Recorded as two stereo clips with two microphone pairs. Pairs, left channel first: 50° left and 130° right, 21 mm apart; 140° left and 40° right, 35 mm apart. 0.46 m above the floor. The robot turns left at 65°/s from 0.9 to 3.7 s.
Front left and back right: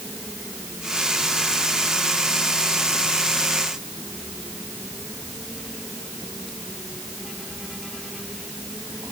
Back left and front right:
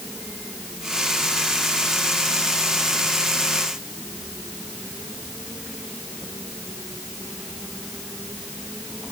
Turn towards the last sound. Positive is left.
No sound to turn to.